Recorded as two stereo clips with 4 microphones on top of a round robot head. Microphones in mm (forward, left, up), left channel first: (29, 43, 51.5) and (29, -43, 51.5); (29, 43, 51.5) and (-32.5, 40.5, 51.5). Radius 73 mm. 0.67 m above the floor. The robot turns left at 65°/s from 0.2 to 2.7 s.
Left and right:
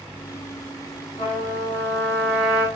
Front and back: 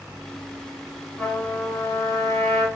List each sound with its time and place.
1.2 s a trumpet: 75° left, 4 m; by 2.6 s 20° right, 4 m